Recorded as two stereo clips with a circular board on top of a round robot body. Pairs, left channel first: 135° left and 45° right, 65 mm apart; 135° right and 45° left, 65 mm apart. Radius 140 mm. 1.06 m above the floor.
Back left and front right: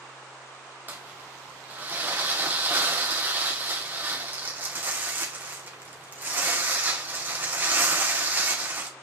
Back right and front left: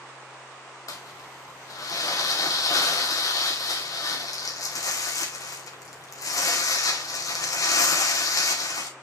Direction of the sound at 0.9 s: 105° right.